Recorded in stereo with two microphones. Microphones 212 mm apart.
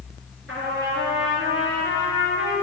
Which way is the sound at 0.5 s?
80° right.